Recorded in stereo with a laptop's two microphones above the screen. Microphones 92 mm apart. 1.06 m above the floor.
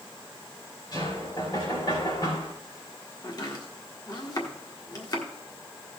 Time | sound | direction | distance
0.9 | knocking | 45° left (ahead or behind) | 4 m
3.2 | chopping | 40° left (ahead or behind) | 1.5 m